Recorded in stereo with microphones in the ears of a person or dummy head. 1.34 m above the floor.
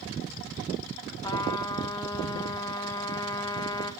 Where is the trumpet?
15° left (ahead or behind), 1.3 m.